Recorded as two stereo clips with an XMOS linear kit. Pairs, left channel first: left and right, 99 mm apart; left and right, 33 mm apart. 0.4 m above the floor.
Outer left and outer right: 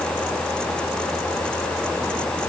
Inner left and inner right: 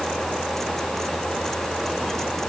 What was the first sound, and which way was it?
Only background noise.